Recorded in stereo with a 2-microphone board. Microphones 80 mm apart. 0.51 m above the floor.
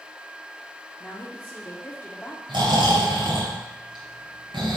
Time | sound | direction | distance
1.0 | a woman speaking | 20° left (ahead or behind) | 1.0 m
2.5 | snoring | 75° right (ahead or behind) | 3.5 m